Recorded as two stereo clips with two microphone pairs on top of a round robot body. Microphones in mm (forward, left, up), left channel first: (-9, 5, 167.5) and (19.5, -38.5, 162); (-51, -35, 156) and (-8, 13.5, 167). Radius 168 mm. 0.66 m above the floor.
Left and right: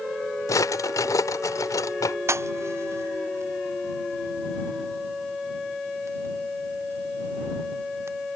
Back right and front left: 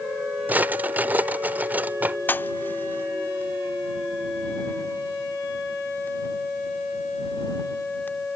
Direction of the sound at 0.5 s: 110° left.